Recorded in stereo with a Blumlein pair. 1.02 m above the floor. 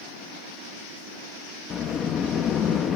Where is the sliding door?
25° left, 0.7 m.